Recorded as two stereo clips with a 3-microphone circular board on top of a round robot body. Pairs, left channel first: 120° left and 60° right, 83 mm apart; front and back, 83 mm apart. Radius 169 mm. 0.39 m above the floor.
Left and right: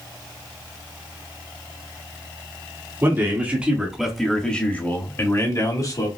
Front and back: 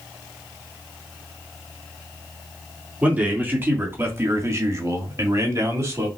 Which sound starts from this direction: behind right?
A man speaking, at 3.0 s.